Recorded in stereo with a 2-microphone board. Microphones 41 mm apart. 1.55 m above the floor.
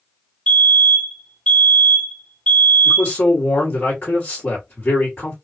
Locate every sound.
0.5 s a fire alarm: 30° left (ahead or behind), 2 m
2.9 s a man speaking: 50° left (ahead or behind), 2 m